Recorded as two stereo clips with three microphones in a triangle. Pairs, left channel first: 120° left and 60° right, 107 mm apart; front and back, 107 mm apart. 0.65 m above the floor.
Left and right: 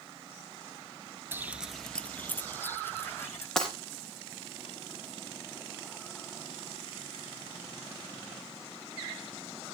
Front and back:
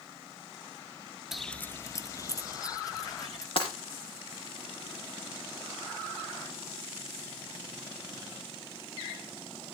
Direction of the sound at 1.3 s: 95° right.